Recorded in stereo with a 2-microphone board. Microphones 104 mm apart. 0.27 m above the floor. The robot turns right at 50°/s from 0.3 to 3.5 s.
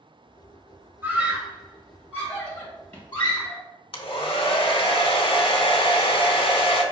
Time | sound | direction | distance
1.0 | a scream | 20° right (ahead or behind) | 1.3 m
3.9 | a hair dryer | 60° left (ahead or behind) | 0.6 m